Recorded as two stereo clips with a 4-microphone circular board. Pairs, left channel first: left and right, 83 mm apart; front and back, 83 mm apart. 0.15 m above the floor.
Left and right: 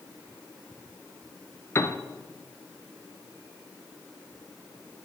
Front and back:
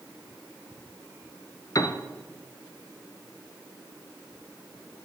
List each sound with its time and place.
1.8 s a piano: 40° left, 0.8 m